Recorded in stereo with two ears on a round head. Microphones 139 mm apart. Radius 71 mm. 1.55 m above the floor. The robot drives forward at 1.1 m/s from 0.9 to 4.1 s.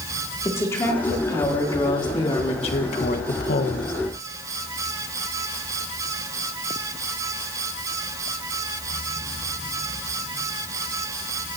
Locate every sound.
0.5 s a woman speaking: 15° left (ahead or behind), 3.5 m; by 3.9 s 65° left (ahead or behind), 1.1 m